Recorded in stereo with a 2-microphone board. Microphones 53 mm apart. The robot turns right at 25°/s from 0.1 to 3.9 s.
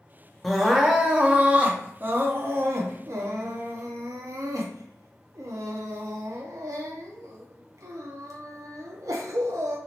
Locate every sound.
0.4 s crying: straight behind, 0.6 m; by 9.8 s 95° right, 0.6 m